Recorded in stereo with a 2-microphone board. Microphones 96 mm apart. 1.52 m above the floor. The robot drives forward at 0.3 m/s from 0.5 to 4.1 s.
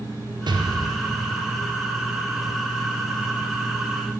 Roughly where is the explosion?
Right.